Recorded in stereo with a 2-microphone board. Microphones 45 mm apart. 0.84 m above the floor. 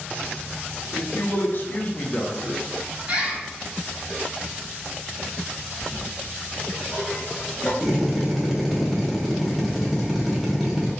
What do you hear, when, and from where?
0.9 s a man speaking: 60° left (ahead or behind), 1.0 m; by 2.6 s 10° right (ahead or behind), 0.5 m
3.1 s a bird: 35° right (ahead or behind), 1.4 m
5.8 s a toilet flushing: 20° left (ahead or behind), 1.1 m
7.8 s a drill: centre (ahead or behind), 0.8 m